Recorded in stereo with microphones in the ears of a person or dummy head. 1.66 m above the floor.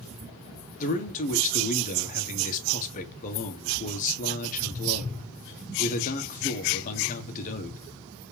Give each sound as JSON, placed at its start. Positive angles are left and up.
{"t": 0.8, "sound": "a man speaking", "side_deg": 45, "distance_m": 1.5}